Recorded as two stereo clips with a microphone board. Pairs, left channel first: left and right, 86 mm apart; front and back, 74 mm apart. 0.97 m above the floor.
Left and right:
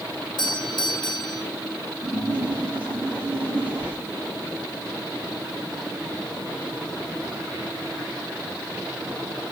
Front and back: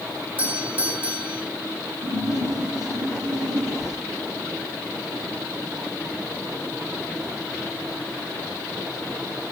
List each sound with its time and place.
0.4 s a doorbell: 115° left, 3.5 m
2.0 s a splash: 160° right, 7.5 m